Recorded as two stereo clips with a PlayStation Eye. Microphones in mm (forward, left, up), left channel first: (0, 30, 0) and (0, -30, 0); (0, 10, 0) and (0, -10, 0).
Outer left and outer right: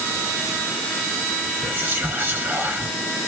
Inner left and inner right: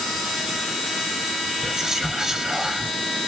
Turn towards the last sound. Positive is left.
turn(degrees=-35)  # may be behind; listen again after turning